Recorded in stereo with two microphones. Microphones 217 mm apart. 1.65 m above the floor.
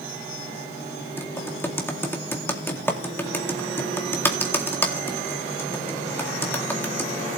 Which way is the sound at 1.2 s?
10° left (ahead or behind).